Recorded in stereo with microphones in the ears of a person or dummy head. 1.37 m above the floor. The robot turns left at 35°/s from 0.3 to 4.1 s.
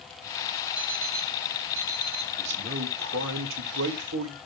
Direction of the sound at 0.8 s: 5° right.